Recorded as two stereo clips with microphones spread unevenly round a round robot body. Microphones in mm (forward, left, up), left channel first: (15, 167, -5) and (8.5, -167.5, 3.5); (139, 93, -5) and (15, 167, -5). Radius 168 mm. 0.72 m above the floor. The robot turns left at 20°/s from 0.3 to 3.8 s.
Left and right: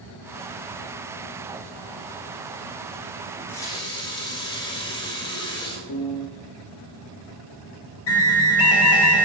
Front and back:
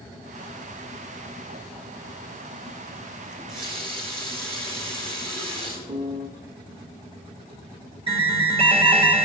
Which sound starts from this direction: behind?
A running tap, at 3.3 s.